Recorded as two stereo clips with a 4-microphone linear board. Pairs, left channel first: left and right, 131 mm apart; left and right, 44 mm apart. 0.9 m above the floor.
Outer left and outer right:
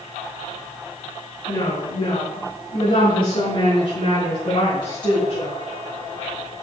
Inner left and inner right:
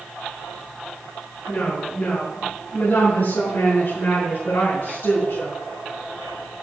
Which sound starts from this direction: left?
A woman speaking, at 1.5 s.